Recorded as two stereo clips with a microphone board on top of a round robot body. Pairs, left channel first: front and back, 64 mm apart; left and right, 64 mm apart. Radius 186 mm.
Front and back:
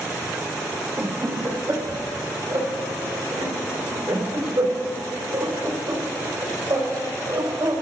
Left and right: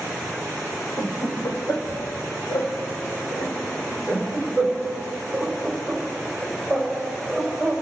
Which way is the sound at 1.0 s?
140° left.